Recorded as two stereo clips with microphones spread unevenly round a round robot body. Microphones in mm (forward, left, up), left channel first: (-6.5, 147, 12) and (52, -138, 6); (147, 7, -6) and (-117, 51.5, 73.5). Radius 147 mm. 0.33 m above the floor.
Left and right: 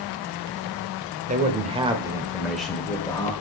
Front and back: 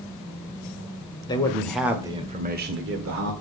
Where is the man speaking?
35° right, 1.3 m; by 3.3 s 170° left, 1.4 m.